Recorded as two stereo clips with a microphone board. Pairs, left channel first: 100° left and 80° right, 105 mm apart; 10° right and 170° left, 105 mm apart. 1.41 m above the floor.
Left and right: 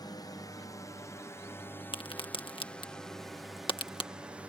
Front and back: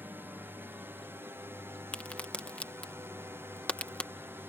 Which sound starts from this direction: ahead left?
A crack, at 1.9 s.